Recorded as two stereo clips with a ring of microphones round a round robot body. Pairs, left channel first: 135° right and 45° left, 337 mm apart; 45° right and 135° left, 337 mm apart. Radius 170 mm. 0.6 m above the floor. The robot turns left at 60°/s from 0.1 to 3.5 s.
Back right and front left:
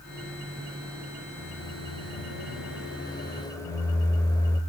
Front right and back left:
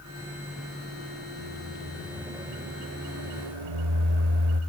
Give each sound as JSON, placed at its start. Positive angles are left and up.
{"t": 1.4, "sound": "a microwave", "azimuth_deg": -90, "distance_m": 2.5}